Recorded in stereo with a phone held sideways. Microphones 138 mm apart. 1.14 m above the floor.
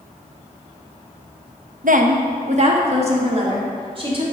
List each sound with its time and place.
1.8 s a woman speaking: 70° right (ahead or behind), 0.9 m; by 4.2 s 40° right (ahead or behind), 3 m